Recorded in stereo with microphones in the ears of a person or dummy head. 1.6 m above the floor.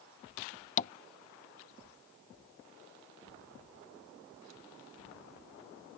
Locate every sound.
0.8 s tapping: 40° left (ahead or behind)